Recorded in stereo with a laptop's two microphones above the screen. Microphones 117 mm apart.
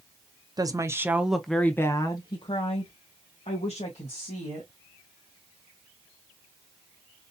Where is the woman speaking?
35° right (ahead or behind), 0.7 m; by 4.7 s 70° left (ahead or behind), 1.8 m.